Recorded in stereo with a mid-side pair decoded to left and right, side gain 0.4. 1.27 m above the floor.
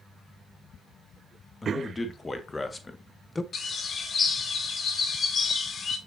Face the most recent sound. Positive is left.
turn(degrees=50)